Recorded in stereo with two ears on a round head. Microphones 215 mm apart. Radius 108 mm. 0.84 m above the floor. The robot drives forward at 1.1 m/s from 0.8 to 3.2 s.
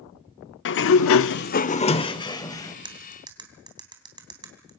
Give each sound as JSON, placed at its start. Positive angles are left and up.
{"t": 0.7, "sound": "a sliding door", "side_deg": 50, "distance_m": 0.6}
{"t": 2.9, "sound": "cutlery clinking", "side_deg": -20, "distance_m": 3.0}